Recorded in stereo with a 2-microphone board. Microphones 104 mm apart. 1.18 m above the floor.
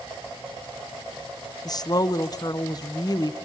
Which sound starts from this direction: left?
A woman speaking, at 1.6 s.